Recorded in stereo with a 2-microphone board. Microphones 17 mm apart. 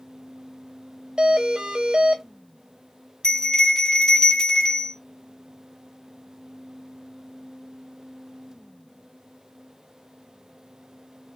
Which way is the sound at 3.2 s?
30° left (ahead or behind).